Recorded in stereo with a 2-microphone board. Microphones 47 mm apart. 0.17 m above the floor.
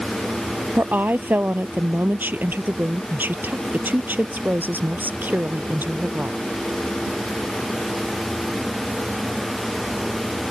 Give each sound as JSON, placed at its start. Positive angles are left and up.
{"t": 0.8, "sound": "a woman speaking", "side_deg": -40}